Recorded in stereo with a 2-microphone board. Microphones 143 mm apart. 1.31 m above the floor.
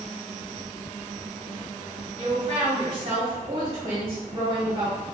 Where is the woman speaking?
40° right (ahead or behind), 0.9 m.